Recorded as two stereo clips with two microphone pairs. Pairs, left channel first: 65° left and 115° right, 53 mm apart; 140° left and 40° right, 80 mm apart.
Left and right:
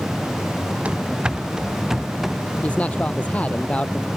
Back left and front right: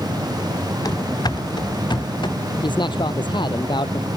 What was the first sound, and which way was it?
Running footsteps, straight behind.